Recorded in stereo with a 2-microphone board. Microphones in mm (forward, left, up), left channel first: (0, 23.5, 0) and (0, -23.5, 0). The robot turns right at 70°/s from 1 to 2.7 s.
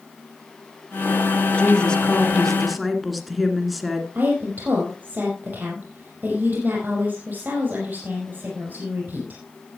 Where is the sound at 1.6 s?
25° left (ahead or behind), 1.8 m; by 4.0 s centre (ahead or behind), 1.8 m.